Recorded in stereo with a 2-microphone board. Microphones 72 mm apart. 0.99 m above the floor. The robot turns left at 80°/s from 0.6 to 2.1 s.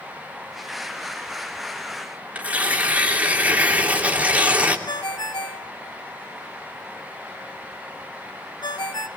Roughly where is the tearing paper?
Right.